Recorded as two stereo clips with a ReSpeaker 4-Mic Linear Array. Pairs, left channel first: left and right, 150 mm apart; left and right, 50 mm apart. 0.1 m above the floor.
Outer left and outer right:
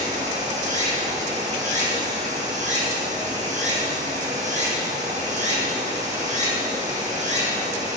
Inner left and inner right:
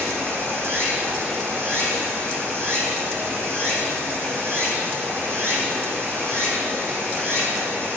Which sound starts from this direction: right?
Running water, at 0.0 s.